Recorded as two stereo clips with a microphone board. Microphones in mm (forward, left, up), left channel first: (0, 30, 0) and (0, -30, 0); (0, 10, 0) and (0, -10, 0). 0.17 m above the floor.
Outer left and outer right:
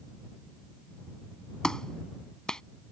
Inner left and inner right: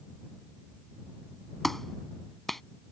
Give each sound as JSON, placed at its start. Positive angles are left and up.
{"t": 1.6, "sound": "a clap", "side_deg": 10}